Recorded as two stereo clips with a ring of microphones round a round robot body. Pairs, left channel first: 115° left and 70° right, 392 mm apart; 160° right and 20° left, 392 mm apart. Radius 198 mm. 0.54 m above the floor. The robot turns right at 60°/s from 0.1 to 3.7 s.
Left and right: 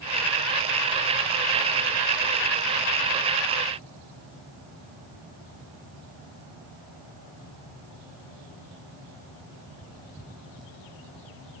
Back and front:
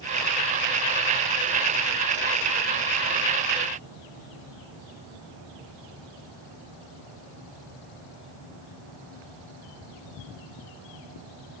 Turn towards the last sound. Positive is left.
No sound to turn to.